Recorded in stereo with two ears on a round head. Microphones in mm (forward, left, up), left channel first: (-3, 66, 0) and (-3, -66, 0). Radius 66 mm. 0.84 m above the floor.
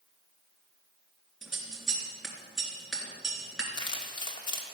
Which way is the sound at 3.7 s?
30° left (ahead or behind).